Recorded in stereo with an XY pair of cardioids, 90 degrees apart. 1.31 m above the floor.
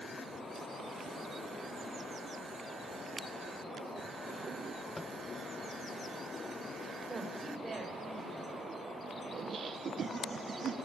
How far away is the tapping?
About 0.9 m.